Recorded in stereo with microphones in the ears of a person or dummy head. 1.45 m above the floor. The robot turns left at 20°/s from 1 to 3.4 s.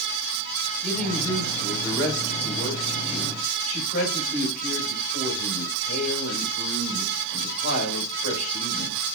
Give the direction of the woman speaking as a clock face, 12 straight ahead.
6 o'clock.